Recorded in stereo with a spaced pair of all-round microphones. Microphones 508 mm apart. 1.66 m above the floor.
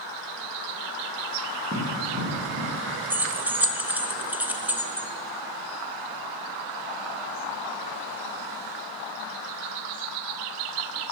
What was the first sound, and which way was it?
Running footsteps, 25° right (ahead or behind).